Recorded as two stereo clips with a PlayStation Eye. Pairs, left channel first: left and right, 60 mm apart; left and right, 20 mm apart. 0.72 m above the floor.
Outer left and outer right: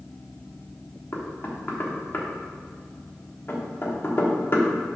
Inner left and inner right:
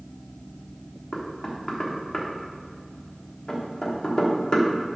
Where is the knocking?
40° left (ahead or behind), 1.1 m.